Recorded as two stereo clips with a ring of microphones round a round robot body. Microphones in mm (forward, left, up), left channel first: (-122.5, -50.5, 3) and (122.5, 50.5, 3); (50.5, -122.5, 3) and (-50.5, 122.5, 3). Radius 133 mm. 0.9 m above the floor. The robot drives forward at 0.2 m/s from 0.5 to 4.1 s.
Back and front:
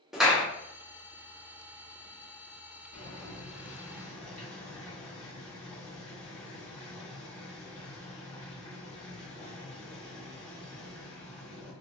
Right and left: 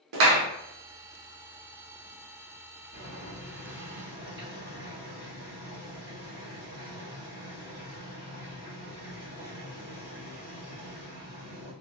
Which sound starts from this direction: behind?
Boiling, at 2.9 s.